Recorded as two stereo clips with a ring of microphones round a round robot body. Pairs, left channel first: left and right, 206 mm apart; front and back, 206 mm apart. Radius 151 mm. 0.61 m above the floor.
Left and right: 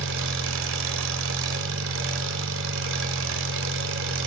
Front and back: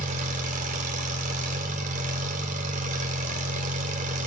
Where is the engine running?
120° right, 2 m.